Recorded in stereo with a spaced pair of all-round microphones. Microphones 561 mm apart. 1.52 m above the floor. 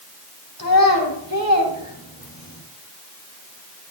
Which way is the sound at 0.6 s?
35° left (ahead or behind).